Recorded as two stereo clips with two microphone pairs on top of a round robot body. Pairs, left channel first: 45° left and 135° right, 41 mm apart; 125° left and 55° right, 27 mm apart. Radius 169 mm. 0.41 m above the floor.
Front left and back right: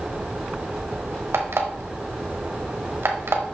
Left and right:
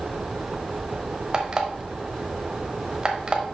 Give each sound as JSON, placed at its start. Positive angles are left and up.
{"t": 1.3, "sound": "an alarm clock", "azimuth_deg": -120, "distance_m": 1.2}